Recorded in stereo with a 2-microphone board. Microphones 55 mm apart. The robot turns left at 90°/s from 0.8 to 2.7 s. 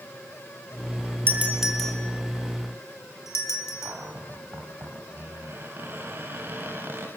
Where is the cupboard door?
40° right (ahead or behind), 4.5 m.